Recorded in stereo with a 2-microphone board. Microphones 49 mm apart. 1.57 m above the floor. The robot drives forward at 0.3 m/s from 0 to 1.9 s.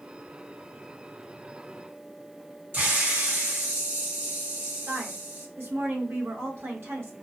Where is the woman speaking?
55° right (ahead or behind), 1.3 m.